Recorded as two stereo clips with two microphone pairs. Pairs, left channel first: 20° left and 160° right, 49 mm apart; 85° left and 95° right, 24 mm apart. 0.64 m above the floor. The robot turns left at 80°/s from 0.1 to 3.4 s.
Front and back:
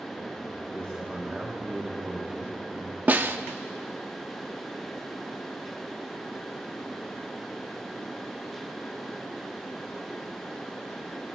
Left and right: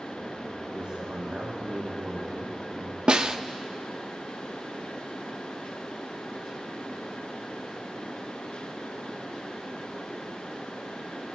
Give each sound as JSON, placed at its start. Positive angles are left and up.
{"t": 0.7, "sound": "a man speaking", "azimuth_deg": -30, "distance_m": 4.5}
{"t": 3.1, "sound": "a snare drum", "azimuth_deg": -125, "distance_m": 0.6}